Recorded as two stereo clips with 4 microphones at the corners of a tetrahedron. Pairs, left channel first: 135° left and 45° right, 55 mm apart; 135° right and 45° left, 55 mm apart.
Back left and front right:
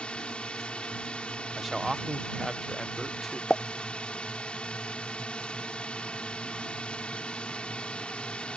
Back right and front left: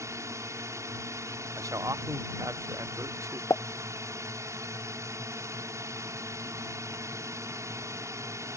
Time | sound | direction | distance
0.0 | a drone | 65° left | ?
1.6 | a man speaking | 45° left | ?
3.5 | a pop | 150° right | ?